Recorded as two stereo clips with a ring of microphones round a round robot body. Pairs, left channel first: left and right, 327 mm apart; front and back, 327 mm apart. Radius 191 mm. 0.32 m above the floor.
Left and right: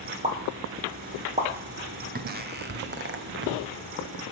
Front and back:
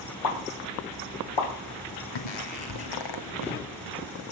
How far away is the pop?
About 5 m.